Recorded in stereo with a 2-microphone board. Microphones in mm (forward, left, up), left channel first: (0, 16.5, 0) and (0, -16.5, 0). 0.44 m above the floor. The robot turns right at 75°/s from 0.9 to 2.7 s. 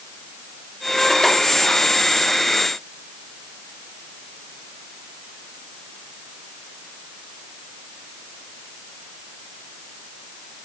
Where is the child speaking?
I don't hear a child speaking.